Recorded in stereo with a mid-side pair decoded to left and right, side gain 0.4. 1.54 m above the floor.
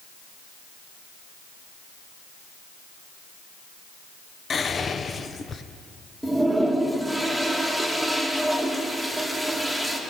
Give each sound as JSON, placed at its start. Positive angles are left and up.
{"t": 4.5, "sound": "whispering", "azimuth_deg": 45, "distance_m": 0.8}
{"t": 6.2, "sound": "a toilet flushing", "azimuth_deg": 0, "distance_m": 2.0}